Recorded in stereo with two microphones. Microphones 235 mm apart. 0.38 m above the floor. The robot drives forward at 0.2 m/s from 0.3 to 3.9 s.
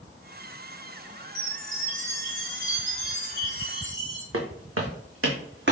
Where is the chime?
40° right (ahead or behind), 2.0 m; by 4.2 s 45° right (ahead or behind), 1.9 m.